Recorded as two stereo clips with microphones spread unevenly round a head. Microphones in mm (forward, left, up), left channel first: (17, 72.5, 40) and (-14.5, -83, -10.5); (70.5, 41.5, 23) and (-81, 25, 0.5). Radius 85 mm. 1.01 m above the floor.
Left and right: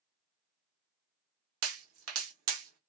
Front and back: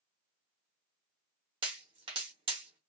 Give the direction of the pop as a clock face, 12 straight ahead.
4 o'clock.